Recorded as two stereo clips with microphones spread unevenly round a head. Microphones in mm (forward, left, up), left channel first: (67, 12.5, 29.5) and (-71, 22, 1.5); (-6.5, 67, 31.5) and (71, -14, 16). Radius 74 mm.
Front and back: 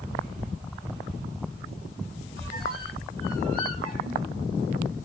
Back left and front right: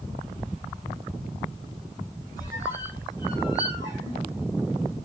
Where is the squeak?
125° right, 1.6 m.